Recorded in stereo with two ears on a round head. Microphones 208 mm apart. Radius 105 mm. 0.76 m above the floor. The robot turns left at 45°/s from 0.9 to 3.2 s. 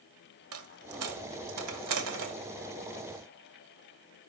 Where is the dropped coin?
60° right (ahead or behind), 1.2 m; by 2.4 s 55° right (ahead or behind), 1.2 m.